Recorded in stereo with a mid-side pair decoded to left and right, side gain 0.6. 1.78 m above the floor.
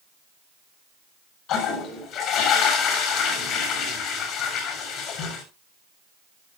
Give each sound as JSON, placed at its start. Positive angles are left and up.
{"t": 1.5, "sound": "a toilet flushing", "azimuth_deg": 60, "distance_m": 7.0}